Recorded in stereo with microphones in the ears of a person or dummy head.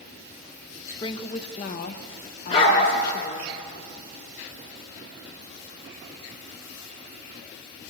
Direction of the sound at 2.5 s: 35° left (ahead or behind).